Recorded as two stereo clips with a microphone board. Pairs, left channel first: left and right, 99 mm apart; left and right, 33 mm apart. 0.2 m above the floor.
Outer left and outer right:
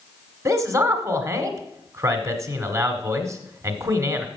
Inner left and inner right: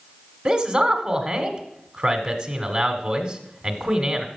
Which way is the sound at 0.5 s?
30° right (ahead or behind).